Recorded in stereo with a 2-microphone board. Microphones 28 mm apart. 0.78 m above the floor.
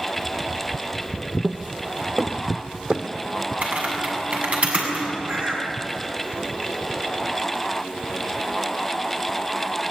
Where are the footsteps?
55° right (ahead or behind), 1.2 m; by 3.1 s 40° right (ahead or behind), 1.7 m.